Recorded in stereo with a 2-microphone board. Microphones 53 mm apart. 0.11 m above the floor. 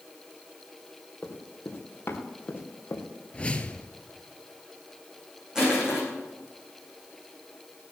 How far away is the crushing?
About 7 m.